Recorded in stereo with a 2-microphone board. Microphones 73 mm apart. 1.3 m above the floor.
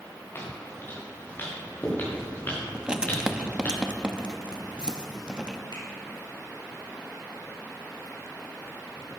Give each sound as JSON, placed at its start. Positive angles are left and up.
{"t": 0.3, "sound": "footsteps", "side_deg": 35, "distance_m": 5.5}
{"t": 2.7, "sound": "writing", "side_deg": -15, "distance_m": 0.8}
{"t": 5.7, "sound": "a finger snap", "side_deg": 80, "distance_m": 4.5}